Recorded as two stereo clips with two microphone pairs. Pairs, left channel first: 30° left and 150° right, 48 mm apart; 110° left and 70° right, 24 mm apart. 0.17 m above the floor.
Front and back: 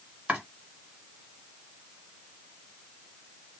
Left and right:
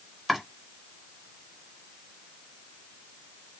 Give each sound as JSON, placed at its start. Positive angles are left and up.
{"t": 0.3, "sound": "chopping", "azimuth_deg": -135, "distance_m": 1.4}